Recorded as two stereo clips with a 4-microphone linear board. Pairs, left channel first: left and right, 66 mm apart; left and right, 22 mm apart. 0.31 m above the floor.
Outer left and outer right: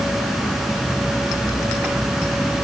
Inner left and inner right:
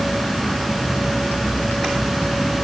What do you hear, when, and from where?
Only background noise.